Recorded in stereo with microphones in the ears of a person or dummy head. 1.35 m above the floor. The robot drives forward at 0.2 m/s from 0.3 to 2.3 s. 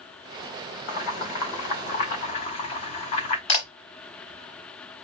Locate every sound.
0.9 s boiling: 45° left (ahead or behind), 2.5 m; by 3.4 s 40° left (ahead or behind), 2.5 m
3.5 s a camera shutter: 35° left (ahead or behind), 3.5 m